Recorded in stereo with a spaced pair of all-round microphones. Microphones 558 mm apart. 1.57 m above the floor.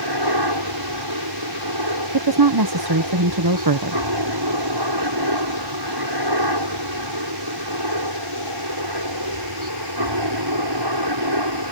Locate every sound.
0.0 s a helicopter: 45° right (ahead or behind)
2.1 s a woman speaking: 40° right (ahead or behind)